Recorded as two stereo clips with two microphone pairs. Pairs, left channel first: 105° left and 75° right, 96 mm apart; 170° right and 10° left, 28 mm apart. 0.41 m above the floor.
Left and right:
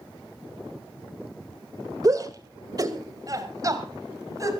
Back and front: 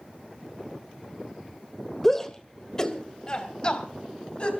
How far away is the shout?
About 1.9 m.